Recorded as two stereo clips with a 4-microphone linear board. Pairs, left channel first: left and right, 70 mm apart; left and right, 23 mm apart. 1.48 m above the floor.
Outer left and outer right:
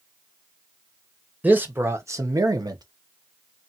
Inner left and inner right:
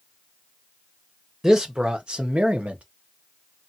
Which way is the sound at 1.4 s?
20° right (ahead or behind).